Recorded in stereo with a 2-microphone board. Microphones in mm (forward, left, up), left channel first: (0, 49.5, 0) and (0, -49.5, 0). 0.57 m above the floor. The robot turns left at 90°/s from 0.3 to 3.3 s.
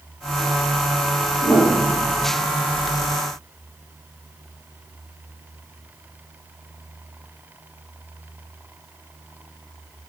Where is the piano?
60° left (ahead or behind), 2.5 m; by 2.3 s 25° right (ahead or behind), 2.5 m.